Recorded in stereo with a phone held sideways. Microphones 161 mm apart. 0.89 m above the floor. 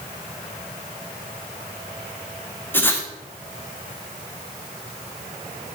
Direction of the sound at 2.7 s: 15° left (ahead or behind).